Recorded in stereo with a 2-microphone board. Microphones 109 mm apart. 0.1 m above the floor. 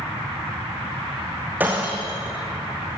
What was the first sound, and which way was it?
Breaking glass, 15° right (ahead or behind).